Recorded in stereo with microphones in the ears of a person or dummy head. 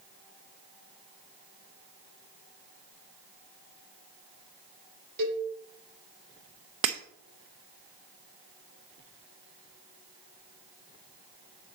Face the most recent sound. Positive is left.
turn(degrees=-30)  # may be behind; listen again after turning